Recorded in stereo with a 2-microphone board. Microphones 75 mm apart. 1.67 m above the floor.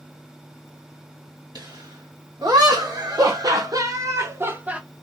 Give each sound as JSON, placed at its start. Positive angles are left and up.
{"t": 1.6, "sound": "laughter", "side_deg": -70, "distance_m": 2.5}